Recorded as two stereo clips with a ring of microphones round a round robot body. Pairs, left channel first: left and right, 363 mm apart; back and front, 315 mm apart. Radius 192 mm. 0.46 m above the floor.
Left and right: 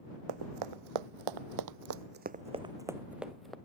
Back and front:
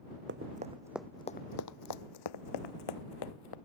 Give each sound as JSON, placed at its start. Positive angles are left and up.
{"t": 0.3, "sound": "running footsteps", "azimuth_deg": -65}